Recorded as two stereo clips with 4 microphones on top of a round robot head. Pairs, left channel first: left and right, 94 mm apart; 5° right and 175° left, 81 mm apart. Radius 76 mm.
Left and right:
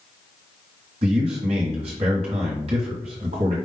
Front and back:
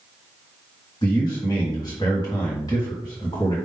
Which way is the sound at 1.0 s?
60° right.